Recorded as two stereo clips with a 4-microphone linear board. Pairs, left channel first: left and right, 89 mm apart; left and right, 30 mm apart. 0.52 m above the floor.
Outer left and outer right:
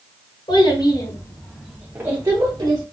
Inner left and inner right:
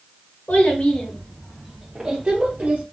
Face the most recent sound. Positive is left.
turn(degrees=-50)  # may be behind; listen again after turning